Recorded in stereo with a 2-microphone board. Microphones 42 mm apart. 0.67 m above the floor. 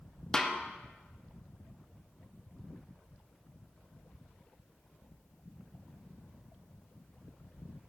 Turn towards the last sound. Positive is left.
turn(degrees=15)  # may be behind; listen again after turning